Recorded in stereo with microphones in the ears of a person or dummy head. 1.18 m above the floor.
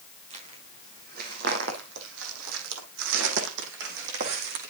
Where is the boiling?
No boiling in this recording.